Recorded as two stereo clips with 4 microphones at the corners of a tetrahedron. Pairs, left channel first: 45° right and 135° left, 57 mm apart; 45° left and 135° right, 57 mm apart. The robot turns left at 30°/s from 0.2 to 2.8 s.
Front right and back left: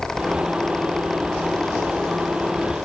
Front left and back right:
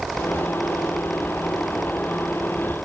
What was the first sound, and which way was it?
Only background noise.